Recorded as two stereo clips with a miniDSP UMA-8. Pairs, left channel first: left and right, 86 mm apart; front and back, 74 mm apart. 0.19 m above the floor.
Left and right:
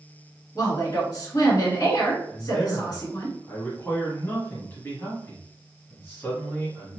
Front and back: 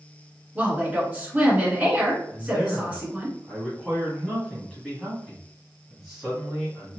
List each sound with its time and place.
0.6 s a woman speaking: 115° left, 1.9 m
2.3 s a man speaking: 90° left, 1.2 m